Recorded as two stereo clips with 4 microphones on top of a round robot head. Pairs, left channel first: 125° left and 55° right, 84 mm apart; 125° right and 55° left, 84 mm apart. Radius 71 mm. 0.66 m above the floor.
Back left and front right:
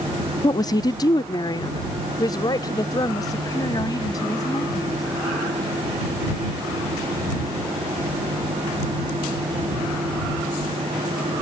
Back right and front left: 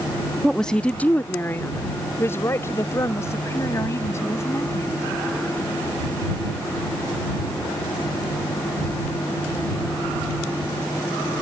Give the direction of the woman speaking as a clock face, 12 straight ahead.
7 o'clock.